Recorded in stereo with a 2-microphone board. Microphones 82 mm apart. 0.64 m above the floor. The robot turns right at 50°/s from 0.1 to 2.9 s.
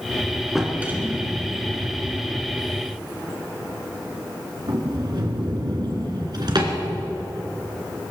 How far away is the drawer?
About 2.5 m.